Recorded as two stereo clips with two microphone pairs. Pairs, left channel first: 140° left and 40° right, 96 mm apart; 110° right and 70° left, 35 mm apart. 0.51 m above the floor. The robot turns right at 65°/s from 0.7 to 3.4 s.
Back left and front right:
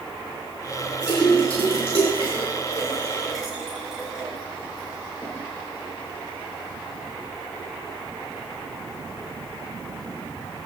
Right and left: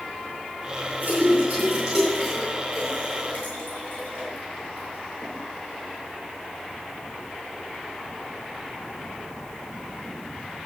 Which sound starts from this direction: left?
A splash, at 1.0 s.